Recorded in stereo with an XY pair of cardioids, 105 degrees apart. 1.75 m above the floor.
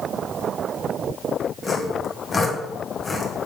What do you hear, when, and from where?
1.6 s sawing: 25° left, 1.4 m